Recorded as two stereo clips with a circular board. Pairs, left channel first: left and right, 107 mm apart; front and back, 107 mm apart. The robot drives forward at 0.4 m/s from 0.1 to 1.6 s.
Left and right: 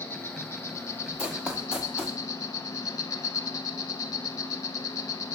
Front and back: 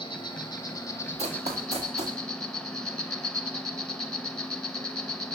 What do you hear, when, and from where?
0.0 s an insect: 25° left, 0.9 m; by 5.4 s 80° left, 0.6 m
1.2 s running footsteps: 170° right, 1.1 m